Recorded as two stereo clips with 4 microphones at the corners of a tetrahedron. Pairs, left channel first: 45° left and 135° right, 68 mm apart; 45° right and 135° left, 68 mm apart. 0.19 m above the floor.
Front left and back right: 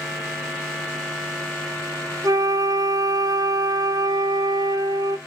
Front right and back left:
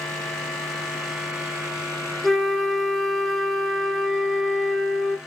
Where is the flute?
130° right, 0.6 m.